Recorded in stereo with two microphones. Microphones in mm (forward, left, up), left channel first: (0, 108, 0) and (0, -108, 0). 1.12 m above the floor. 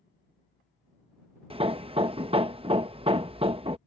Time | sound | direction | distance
1.5 | hammering | 25° right (ahead or behind) | ?